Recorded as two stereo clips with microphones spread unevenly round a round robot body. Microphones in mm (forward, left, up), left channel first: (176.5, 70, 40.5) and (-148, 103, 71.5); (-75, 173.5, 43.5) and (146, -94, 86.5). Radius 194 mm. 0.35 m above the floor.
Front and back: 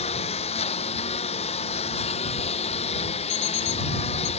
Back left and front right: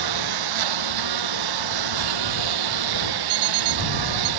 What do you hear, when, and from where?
0.0 s a lawn mower: 80° right
3.3 s an alarm clock: 60° right